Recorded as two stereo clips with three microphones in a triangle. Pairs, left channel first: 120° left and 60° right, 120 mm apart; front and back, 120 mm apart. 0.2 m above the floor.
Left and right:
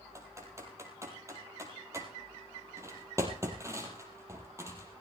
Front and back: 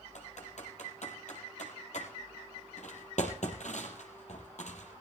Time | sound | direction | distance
0.1 | typing on a keyboard | 5° left | 3.5 m